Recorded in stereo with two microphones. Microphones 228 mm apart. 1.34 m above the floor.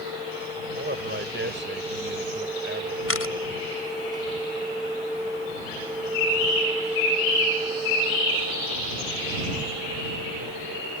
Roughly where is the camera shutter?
Left.